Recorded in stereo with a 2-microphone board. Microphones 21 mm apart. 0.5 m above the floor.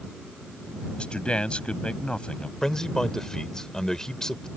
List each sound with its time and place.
1.0 s a man speaking: 55° left (ahead or behind)
2.6 s a man speaking: 30° left (ahead or behind)